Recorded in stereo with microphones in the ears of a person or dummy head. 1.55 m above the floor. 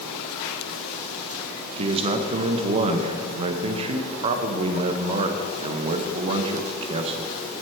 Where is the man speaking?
30° right (ahead or behind), 0.7 m.